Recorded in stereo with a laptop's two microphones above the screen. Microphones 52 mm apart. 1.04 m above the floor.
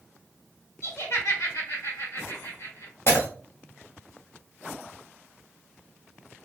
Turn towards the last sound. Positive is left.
turn(degrees=55)  # may be behind; listen again after turning